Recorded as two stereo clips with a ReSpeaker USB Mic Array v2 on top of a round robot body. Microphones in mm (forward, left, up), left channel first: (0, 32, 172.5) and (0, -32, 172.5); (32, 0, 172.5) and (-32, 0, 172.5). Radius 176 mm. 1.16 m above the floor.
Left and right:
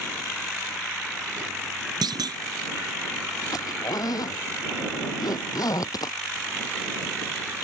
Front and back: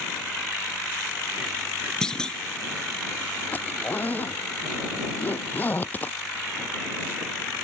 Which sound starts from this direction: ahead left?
A zipper, at 3.5 s.